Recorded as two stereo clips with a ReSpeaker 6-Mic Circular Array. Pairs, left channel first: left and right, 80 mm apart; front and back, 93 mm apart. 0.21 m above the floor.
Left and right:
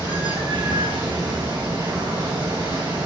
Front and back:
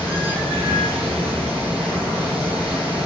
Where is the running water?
110° right, 3 m.